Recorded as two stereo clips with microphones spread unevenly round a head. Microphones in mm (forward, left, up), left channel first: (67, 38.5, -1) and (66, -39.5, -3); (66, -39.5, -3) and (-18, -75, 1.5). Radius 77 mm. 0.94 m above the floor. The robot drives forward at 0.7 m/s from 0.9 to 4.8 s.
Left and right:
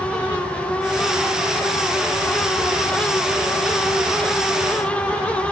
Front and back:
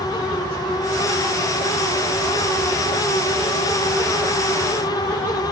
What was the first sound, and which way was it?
Only background noise.